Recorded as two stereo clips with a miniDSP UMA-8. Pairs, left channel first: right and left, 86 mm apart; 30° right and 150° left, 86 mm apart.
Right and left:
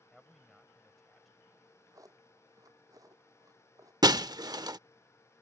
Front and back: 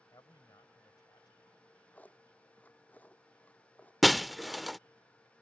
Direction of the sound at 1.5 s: 40° left.